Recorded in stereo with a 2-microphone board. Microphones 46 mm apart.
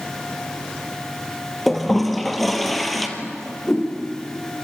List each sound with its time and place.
1.7 s a toilet flushing: centre (ahead or behind), 2.5 m
3.2 s a whoosh: 10° left (ahead or behind), 5.5 m